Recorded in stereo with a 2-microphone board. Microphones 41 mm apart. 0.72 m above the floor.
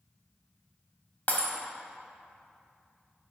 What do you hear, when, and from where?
1.3 s breaking glass: 45° left (ahead or behind), 1.1 m